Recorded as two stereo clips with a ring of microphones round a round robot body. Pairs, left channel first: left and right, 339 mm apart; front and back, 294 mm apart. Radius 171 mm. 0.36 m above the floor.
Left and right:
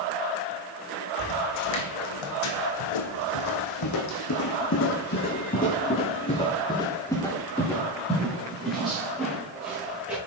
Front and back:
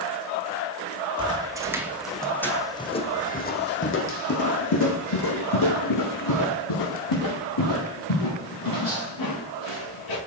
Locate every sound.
1.2 s footsteps: 105° left, 1.6 m; by 10.2 s 5° right, 4 m